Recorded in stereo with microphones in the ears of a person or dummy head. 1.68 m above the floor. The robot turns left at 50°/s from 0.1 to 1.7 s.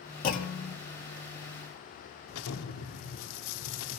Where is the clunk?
45° left (ahead or behind), 1.6 m; by 0.8 s 55° left (ahead or behind), 1.6 m.